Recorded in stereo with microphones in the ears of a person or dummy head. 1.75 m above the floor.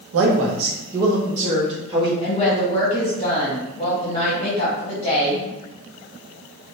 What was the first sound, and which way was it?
A man speaking, 75° right (ahead or behind).